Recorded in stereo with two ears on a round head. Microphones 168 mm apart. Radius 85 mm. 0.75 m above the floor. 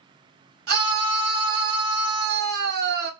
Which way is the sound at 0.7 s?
55° right (ahead or behind).